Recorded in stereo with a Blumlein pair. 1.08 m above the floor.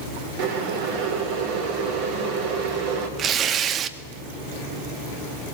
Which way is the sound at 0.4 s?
50° right.